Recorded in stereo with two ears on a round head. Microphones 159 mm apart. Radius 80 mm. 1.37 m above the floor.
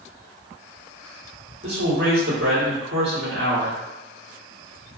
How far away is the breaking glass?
I don't hear breaking glass.